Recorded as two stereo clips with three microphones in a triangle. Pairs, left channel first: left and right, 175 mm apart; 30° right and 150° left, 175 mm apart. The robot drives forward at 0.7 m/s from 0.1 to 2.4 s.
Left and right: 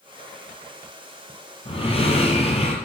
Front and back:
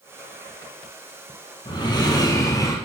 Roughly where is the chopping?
No chopping in this recording.